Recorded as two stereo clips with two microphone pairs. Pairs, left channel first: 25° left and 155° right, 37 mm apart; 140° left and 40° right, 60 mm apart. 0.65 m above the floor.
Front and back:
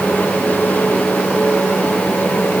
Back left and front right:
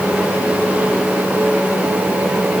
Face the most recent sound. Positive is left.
No sound to turn to.